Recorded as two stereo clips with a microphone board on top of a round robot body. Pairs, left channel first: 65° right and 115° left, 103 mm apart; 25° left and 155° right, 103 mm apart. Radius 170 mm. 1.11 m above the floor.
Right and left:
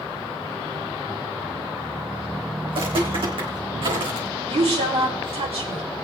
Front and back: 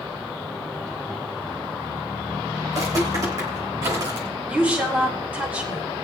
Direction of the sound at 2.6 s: 145° left.